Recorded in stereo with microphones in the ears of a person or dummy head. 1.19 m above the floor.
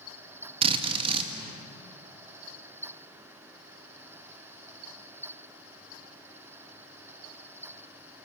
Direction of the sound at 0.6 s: 30° right (ahead or behind).